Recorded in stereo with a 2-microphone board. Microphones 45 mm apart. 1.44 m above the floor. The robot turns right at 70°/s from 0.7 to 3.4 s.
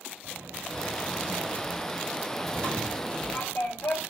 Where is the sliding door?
115° right, 6.5 m; by 4.0 s 70° left, 6.5 m.